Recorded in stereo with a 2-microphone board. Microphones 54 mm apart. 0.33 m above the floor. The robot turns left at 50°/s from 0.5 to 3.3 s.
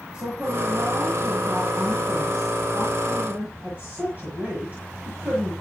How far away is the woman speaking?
About 8 m.